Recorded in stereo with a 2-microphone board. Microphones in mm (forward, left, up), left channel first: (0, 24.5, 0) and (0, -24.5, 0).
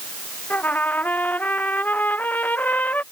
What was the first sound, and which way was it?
A trumpet, 30° left (ahead or behind).